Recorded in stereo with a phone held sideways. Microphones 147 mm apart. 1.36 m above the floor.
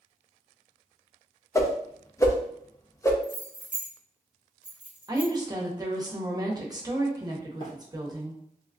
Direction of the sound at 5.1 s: 25° right (ahead or behind).